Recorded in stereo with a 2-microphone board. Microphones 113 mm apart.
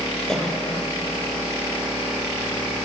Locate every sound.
0.3 s a cough: 5° left (ahead or behind), 6.5 m